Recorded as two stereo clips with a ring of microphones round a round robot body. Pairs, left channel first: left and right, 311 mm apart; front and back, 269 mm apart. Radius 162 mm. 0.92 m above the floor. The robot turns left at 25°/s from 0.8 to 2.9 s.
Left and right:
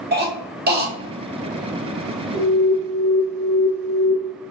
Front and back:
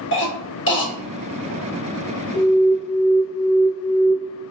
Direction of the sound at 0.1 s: 35° right.